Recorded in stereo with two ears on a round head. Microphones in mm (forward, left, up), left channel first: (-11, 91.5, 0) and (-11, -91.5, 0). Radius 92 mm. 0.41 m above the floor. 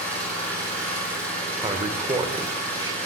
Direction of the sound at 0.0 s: 5° left (ahead or behind).